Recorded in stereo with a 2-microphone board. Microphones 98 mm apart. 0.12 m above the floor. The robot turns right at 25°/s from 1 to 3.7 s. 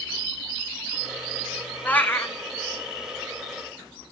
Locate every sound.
1.9 s a cat meowing: 15° left (ahead or behind), 0.9 m; by 2.4 s 30° left (ahead or behind), 0.9 m